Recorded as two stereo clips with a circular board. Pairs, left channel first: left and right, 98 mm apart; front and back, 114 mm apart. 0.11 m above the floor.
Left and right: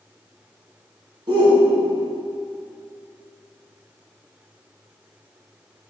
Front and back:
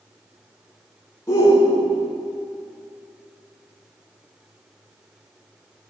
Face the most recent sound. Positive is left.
turn(degrees=-60)